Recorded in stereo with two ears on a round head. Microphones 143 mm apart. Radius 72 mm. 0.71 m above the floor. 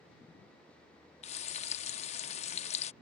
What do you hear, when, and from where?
1.2 s frying: 45° left (ahead or behind)